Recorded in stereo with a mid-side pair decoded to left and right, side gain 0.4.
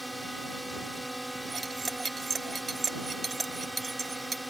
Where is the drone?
5° right.